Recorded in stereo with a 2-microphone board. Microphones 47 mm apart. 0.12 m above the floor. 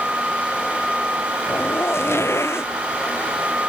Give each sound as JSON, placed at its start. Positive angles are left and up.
{"t": 1.5, "sound": "a zipper", "side_deg": 70}